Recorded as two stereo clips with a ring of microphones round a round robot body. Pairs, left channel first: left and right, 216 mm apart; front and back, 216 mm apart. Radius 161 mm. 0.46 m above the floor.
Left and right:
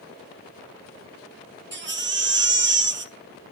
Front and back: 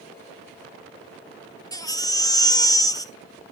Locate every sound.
1.7 s a baby crying: 70° right, 1.5 m